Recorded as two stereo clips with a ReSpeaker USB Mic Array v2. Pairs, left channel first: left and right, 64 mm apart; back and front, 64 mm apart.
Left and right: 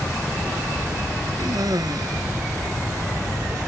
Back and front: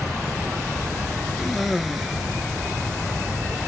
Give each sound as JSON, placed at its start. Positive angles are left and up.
{"t": 1.4, "sound": "a cough", "azimuth_deg": -90}